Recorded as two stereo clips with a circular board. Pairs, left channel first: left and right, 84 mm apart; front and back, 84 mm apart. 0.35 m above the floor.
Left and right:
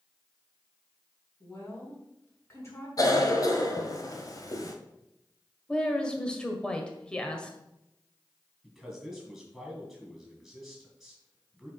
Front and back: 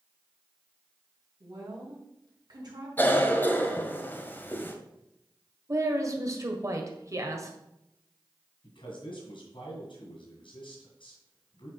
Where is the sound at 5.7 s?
165° left, 1.6 m.